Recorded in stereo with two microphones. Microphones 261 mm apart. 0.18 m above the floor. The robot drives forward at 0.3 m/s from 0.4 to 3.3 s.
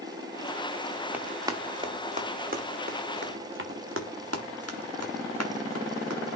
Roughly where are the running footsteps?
Centre.